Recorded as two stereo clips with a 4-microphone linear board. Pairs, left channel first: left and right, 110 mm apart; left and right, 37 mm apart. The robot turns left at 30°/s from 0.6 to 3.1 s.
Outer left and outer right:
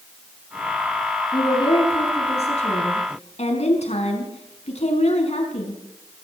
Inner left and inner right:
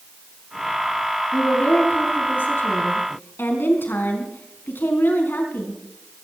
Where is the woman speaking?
140° left, 5 m; by 5.8 s 90° left, 5 m.